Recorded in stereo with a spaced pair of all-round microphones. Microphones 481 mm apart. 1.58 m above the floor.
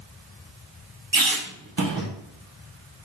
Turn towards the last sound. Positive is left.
turn(degrees=-45)  # may be behind; listen again after turning